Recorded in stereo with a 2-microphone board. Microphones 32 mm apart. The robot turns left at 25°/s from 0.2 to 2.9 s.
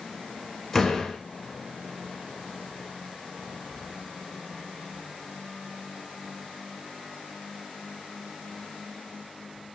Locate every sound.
0.7 s a door slam: 10° left (ahead or behind), 1.0 m; by 1.2 s 20° left (ahead or behind), 1.0 m